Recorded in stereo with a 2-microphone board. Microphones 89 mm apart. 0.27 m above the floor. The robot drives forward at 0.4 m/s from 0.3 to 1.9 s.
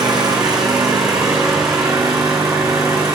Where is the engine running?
45° right (ahead or behind), 4.5 m; by 3.1 s 40° right (ahead or behind), 5 m.